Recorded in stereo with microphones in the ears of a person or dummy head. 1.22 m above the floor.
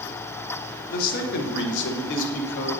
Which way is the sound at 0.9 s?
45° left (ahead or behind).